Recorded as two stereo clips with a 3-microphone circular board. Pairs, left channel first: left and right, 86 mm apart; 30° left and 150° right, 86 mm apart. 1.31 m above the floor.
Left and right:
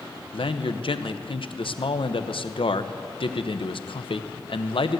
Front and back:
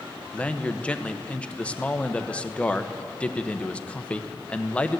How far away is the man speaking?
About 0.8 m.